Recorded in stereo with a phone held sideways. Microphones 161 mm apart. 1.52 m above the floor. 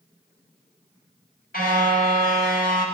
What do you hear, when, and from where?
1.5 s a car horn: 65° left (ahead or behind), 3.5 m